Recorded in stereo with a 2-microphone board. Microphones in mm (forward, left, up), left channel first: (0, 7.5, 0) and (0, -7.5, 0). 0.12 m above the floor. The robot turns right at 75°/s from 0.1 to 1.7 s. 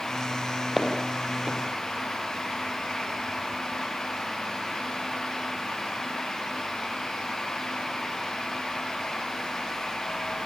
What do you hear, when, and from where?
0.8 s footsteps: 5° right (ahead or behind), 5.5 m; by 1.6 s 65° right (ahead or behind), 5.5 m